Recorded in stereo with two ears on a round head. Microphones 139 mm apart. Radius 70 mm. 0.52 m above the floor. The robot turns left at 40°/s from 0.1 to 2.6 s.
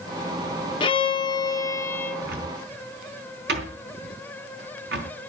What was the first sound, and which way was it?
A violin, 70° left.